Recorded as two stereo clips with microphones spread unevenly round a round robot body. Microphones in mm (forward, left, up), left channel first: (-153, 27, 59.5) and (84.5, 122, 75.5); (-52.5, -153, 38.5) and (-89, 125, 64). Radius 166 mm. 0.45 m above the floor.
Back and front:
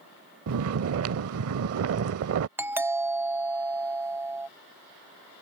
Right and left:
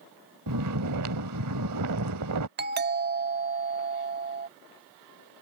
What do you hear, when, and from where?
0.5 s snoring: 55° left
2.6 s a doorbell: 100° left